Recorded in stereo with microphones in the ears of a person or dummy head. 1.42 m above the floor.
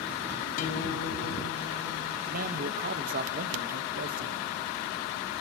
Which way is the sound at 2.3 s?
45° right (ahead or behind).